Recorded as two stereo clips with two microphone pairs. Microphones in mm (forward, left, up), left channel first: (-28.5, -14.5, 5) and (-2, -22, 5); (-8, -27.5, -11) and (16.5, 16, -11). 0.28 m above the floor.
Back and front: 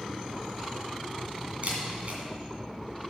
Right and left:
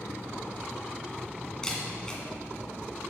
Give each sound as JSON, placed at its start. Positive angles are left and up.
{"t": 1.6, "sound": "a camera shutter", "azimuth_deg": -45, "distance_m": 2.0}